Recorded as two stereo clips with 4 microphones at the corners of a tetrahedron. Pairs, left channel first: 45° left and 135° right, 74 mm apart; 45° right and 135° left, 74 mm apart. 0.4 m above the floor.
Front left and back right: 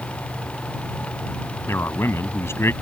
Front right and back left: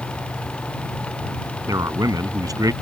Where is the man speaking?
100° left.